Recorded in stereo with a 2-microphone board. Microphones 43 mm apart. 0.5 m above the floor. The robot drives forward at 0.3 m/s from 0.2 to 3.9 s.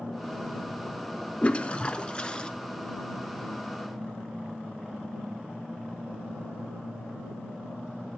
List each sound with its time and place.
1.4 s a toilet flushing: 30° left (ahead or behind), 0.7 m; by 2.5 s 20° left (ahead or behind), 1.0 m